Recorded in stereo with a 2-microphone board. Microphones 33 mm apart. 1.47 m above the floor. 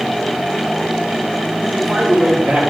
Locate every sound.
1.6 s a man speaking: 45° right (ahead or behind), 3 m